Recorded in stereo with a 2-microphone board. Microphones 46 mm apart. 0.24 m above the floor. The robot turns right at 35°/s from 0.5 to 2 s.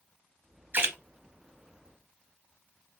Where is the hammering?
I don't hear hammering.